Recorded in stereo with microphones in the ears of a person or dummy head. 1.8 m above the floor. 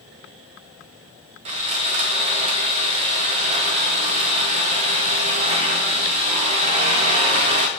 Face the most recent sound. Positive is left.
turn(degrees=-25)  # may be behind; listen again after turning